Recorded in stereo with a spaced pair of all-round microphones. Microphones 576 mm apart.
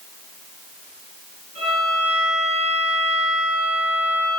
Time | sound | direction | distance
1.6 | a violin | 50° left (ahead or behind) | 8 m